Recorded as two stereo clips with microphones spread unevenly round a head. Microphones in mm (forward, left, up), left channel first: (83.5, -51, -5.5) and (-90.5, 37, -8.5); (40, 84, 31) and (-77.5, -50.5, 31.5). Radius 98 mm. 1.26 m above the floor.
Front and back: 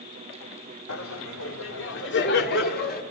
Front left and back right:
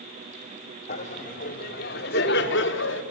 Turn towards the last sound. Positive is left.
turn(degrees=20)